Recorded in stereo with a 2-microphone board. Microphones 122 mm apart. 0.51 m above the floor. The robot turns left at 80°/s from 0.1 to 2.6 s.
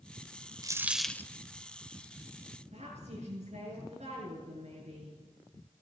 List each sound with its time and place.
0.6 s a dropped coin: 150° right, 0.6 m; by 1.3 s 155° left, 0.6 m
2.7 s a woman speaking: 55° right (ahead or behind), 8 m